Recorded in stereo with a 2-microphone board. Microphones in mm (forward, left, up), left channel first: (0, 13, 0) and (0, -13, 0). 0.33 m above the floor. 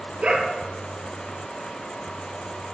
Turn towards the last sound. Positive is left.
turn(degrees=-50)  # may be behind; listen again after turning